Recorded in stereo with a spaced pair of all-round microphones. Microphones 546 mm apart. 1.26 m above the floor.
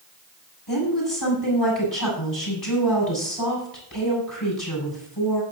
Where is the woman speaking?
45° left (ahead or behind), 7.5 m.